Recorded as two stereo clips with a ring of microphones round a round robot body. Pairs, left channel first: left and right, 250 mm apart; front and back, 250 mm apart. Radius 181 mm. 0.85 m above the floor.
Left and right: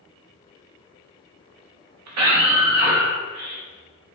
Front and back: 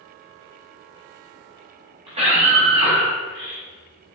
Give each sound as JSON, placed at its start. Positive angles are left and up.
{"t": 2.1, "sound": "a scream", "azimuth_deg": -105, "distance_m": 1.0}